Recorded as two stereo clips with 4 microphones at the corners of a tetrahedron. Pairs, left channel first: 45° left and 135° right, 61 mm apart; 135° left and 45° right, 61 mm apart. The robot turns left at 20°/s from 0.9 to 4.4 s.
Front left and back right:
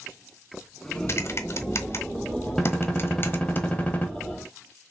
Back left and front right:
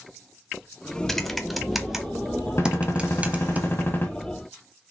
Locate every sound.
1.1 s typing on a keyboard: 55° left, 1.0 m; by 3.6 s 5° left, 1.0 m
2.6 s a gunshot: 130° left, 1.7 m; by 4.1 s 100° left, 1.7 m